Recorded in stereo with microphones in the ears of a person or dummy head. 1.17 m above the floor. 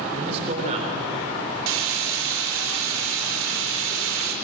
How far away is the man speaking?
About 3.5 m.